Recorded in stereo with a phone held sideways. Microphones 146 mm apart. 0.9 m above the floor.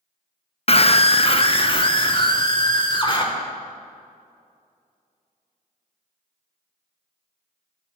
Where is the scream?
45° left (ahead or behind), 0.6 m; by 3.2 s 35° left (ahead or behind), 2.5 m.